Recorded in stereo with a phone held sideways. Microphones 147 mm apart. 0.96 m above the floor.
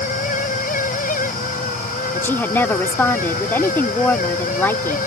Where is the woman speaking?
15° left (ahead or behind).